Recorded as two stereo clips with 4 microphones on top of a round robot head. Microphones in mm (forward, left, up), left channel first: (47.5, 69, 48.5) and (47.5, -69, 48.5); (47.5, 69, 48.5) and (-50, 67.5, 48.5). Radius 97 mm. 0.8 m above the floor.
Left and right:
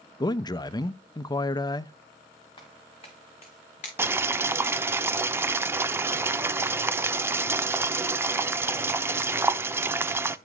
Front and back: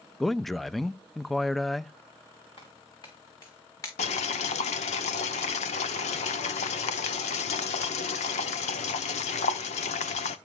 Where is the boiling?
15° right, 0.8 m.